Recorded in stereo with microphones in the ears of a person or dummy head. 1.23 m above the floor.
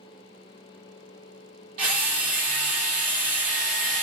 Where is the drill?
45° right (ahead or behind), 0.8 m.